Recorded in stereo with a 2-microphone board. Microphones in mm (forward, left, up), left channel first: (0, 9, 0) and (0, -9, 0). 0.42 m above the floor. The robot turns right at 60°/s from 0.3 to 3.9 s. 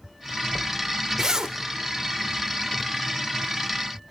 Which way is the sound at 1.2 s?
25° right (ahead or behind).